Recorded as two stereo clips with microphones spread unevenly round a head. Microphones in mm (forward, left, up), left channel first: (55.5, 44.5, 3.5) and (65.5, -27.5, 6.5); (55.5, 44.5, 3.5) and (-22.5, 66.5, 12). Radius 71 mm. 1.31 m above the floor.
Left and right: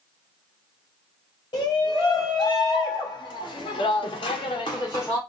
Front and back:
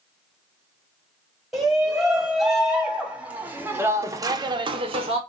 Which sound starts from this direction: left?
A shout, at 1.5 s.